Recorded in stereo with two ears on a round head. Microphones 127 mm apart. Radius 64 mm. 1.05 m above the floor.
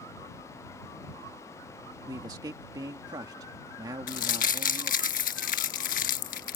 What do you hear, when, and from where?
2.0 s a man speaking: 30° right (ahead or behind)
4.1 s crumpling: 60° left (ahead or behind)